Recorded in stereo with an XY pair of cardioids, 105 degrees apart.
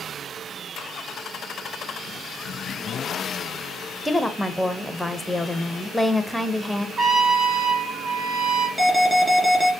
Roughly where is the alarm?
Ahead.